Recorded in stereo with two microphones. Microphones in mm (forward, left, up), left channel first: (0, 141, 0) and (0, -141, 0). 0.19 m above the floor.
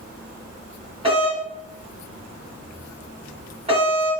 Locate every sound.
1.0 s a doorbell: 20° right (ahead or behind), 1.8 m